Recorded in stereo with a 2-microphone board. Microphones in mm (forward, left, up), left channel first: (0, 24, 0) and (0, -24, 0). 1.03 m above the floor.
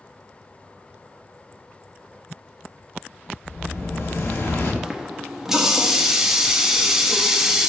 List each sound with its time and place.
3.5 s an explosion: 60° left (ahead or behind), 1.4 m
4.8 s a running tap: 10° right (ahead or behind), 0.8 m